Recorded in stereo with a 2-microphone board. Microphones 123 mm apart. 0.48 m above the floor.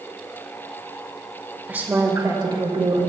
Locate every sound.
1.7 s a woman speaking: 10° right (ahead or behind), 1.7 m; by 3.0 s 50° right (ahead or behind), 2.5 m